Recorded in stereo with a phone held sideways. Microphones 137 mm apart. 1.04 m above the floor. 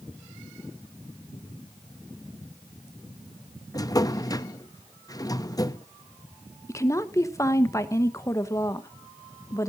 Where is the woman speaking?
20° left (ahead or behind), 1.0 m.